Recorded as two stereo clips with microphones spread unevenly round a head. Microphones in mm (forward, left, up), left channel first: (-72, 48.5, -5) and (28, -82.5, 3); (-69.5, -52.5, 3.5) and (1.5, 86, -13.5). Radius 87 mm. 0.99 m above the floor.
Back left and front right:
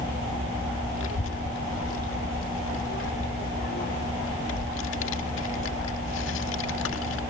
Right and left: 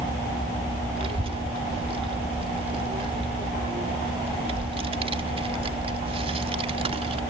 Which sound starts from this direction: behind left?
A child speaking, at 1.0 s.